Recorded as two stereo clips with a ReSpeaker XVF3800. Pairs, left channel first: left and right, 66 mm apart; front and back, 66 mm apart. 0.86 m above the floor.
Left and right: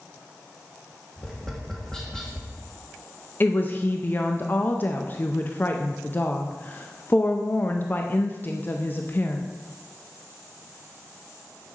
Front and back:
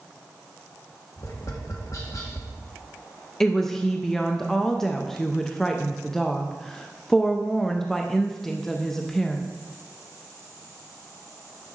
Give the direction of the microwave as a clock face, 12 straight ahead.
No microwave in this recording.